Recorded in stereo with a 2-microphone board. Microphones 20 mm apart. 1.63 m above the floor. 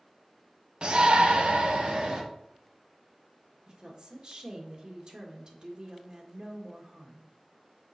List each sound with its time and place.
0.8 s a shout: 50° right (ahead or behind), 1.1 m; by 2.2 s 70° right (ahead or behind), 1.7 m
3.7 s a woman speaking: 45° right (ahead or behind), 1.7 m